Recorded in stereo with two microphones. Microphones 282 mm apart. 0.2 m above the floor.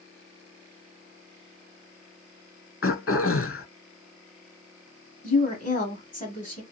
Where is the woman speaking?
30° left (ahead or behind), 1.2 m.